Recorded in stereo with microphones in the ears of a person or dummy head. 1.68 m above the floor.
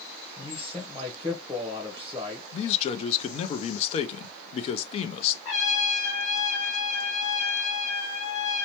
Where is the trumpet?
40° left (ahead or behind), 2.5 m.